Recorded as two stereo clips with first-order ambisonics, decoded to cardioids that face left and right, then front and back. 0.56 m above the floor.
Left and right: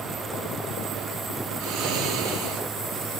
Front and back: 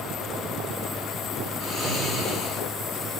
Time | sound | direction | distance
1.6 | snoring | 95° right | 5 m